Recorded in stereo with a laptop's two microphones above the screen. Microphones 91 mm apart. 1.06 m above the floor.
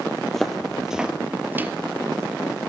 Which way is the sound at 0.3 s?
5° left (ahead or behind).